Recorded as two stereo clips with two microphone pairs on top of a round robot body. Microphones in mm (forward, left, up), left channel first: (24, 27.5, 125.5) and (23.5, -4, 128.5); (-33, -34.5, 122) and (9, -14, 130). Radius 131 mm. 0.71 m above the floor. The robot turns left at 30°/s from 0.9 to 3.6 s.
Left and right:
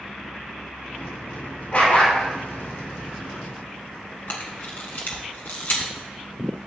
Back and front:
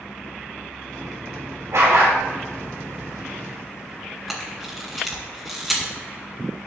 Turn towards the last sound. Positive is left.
turn(degrees=115)